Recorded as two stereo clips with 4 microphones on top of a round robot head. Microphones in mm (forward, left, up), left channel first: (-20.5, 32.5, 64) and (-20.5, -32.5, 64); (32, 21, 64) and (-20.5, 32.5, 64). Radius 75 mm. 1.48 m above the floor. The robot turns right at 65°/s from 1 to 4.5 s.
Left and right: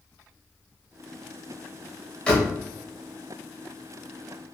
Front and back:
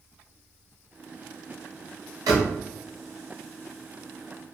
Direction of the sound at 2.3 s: 165° left.